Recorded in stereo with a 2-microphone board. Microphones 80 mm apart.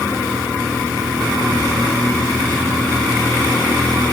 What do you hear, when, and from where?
Only background noise.